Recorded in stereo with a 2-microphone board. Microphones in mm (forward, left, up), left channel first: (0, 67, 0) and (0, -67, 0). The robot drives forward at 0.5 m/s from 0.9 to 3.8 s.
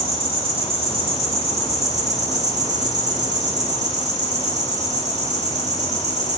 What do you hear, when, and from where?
0.0 s an insect: 50° right (ahead or behind), 2 m; by 6.4 s 65° right (ahead or behind), 1.7 m